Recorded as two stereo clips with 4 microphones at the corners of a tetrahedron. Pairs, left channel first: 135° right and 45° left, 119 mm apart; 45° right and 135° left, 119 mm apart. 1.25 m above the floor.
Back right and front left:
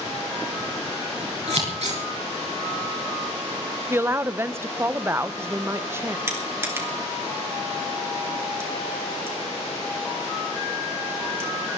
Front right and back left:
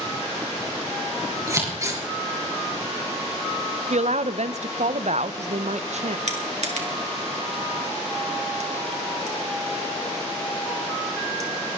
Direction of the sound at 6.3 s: 115° left.